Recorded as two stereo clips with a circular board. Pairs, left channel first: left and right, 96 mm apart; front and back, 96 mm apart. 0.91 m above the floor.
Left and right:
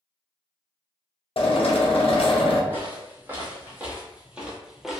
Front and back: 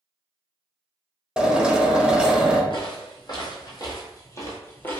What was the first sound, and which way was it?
A drill, 100° left.